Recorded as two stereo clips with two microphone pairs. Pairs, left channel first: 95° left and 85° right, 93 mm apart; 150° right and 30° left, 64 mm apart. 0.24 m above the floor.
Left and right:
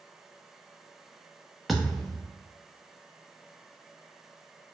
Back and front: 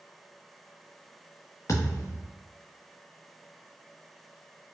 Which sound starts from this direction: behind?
A thud, at 1.7 s.